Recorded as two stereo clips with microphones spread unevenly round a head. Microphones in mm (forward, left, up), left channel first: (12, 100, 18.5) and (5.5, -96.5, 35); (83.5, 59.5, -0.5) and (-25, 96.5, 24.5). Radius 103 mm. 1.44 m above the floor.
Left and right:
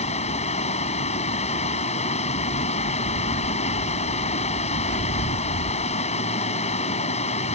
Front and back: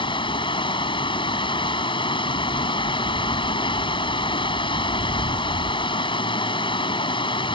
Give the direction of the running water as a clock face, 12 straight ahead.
11 o'clock.